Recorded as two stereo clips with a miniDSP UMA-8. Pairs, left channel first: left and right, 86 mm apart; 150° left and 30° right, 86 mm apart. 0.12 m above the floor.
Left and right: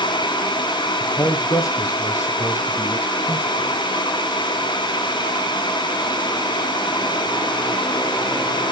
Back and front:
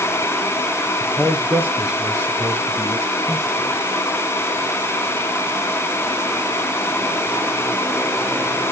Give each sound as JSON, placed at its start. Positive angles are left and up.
{"t": 1.0, "sound": "a man speaking", "azimuth_deg": 50, "distance_m": 3.0}